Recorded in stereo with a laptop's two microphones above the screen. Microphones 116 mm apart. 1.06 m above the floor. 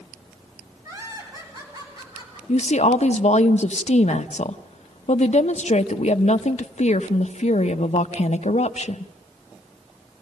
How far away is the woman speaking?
About 0.7 m.